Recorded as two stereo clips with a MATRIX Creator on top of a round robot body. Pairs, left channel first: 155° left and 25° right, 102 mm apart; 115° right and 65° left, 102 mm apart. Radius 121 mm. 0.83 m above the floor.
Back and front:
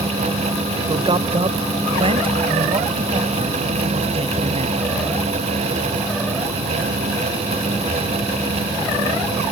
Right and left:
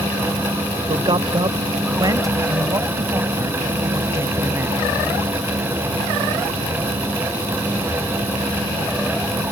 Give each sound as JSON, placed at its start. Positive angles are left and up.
{"t": 0.9, "sound": "a man speaking", "azimuth_deg": 20}